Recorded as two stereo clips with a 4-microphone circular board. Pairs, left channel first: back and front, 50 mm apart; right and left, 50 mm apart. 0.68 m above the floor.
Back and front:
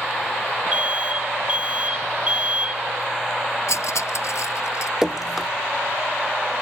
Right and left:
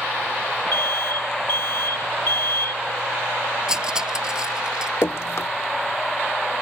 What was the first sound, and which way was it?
An alarm, 60° right.